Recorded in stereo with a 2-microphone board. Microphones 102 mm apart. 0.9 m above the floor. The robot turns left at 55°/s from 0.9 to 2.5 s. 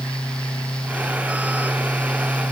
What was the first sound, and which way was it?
Only background noise.